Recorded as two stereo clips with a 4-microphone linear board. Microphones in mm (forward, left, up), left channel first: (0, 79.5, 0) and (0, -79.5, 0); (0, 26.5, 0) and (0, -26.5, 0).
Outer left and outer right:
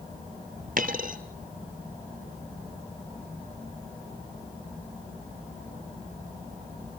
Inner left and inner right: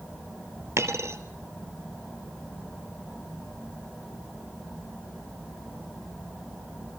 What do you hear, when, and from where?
0.8 s a dropped coin: 60° right (ahead or behind), 1.5 m